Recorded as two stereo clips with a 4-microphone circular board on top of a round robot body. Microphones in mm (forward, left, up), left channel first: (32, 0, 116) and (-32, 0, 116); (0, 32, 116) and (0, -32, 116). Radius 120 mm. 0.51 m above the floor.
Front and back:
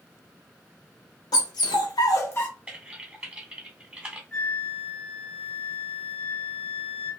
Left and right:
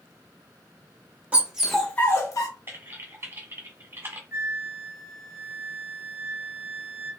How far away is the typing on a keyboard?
About 1.2 m.